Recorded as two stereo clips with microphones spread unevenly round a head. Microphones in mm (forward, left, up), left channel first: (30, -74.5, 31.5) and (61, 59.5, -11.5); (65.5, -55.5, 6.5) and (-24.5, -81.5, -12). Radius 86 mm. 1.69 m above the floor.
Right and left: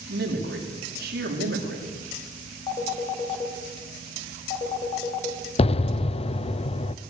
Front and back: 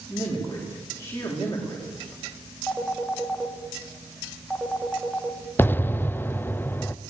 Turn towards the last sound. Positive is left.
turn(degrees=-55)